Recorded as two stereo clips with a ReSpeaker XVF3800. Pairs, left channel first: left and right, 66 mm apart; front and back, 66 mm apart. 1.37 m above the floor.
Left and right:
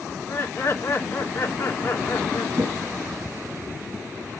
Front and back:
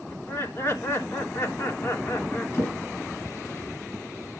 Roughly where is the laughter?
Ahead left.